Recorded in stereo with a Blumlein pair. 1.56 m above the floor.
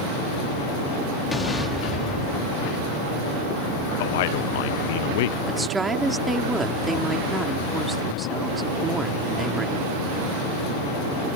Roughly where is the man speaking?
Ahead left.